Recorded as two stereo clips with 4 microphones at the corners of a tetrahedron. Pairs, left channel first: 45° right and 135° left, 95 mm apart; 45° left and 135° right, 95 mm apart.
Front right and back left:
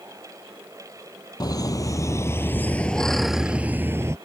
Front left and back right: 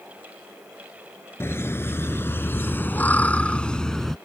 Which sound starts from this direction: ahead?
Laughter, at 1.4 s.